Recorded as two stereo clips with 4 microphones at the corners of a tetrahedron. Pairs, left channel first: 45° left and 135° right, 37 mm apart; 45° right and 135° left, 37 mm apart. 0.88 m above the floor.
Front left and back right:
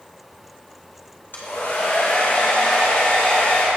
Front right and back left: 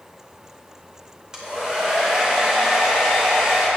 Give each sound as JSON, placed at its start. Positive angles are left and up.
{"t": 1.3, "sound": "a hair dryer", "azimuth_deg": 60, "distance_m": 2.5}